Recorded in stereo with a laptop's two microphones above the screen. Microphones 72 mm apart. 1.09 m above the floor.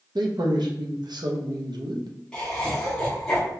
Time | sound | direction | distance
0.1 | a man speaking | 75° right (ahead or behind) | 0.7 m
2.3 | laughter | 10° left (ahead or behind) | 0.8 m